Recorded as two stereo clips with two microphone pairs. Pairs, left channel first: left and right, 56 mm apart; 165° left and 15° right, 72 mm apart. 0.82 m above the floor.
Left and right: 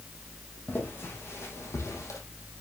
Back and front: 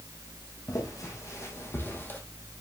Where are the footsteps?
135° left, 2.5 m; by 2.2 s 105° left, 2 m.